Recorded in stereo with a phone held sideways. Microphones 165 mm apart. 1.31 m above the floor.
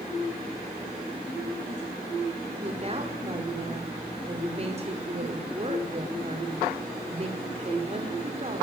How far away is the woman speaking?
About 5 m.